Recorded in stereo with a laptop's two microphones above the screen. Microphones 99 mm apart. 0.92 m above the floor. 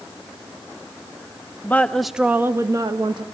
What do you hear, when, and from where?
1.6 s a woman speaking: 20° left (ahead or behind), 0.9 m; by 3.2 s 50° right (ahead or behind), 1.3 m